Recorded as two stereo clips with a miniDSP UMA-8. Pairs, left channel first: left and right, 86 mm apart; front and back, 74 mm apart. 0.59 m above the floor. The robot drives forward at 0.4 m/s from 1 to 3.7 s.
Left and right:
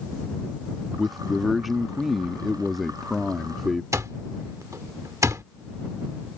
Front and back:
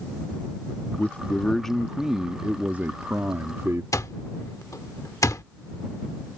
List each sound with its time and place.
1.0 s a man speaking: straight ahead; by 3.8 s straight behind
3.9 s an alarm clock: 40° right